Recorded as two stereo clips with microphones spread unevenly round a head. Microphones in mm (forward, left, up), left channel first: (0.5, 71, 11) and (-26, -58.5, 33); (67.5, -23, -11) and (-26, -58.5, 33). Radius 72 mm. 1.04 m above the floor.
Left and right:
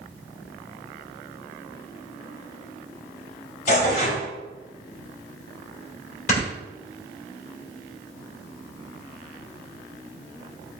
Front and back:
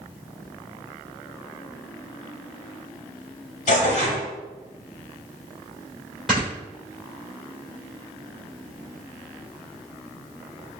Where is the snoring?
115° left, 2 m.